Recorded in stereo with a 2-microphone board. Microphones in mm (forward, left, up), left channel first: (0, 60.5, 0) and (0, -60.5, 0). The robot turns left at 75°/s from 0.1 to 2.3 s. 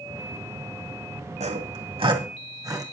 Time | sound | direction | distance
1.4 | sawing | 70° right (ahead or behind) | 2.0 m